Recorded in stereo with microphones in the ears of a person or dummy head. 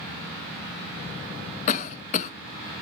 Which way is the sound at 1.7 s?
40° left (ahead or behind).